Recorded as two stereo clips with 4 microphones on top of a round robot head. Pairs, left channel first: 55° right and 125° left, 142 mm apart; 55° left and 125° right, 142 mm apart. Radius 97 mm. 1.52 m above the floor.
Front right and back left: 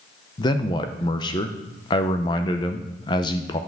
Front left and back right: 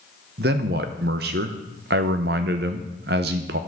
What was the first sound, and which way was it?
A man speaking, 110° right.